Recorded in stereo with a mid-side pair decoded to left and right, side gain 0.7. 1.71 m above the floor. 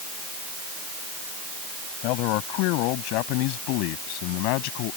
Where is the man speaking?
65° left; by 5.0 s 70° left.